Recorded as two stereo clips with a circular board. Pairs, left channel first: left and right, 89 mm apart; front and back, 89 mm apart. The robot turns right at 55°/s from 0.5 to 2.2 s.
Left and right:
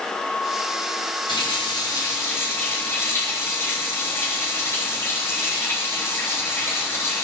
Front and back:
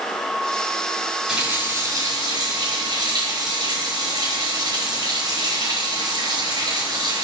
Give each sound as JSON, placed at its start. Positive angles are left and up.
{"t": 1.3, "sound": "a running tap", "azimuth_deg": 100, "distance_m": 7.0}